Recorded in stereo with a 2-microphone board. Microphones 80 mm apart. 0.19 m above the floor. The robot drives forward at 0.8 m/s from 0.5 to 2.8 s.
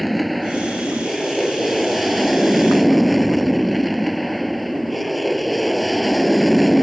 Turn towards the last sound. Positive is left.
turn(degrees=0)  # may be behind; listen again after turning